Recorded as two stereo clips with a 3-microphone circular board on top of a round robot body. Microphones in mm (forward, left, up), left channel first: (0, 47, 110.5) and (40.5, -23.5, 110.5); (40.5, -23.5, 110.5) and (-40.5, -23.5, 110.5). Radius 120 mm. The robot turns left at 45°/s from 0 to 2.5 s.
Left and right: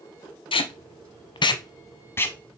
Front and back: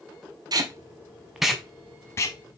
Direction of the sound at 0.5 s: 135° left.